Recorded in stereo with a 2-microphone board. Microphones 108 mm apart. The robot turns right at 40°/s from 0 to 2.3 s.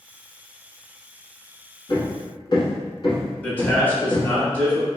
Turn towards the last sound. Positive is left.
turn(degrees=20)  # may be behind; listen again after turning